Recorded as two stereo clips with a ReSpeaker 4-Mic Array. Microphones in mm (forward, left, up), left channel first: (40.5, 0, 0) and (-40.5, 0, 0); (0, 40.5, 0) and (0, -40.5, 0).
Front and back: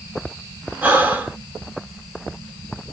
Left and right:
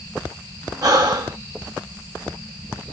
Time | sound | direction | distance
0.8 | breathing | 120° right | 0.9 m